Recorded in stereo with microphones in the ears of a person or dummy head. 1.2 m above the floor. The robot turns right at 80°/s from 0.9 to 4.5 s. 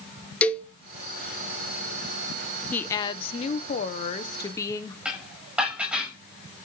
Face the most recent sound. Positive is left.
turn(degrees=0)  # may be behind; listen again after turning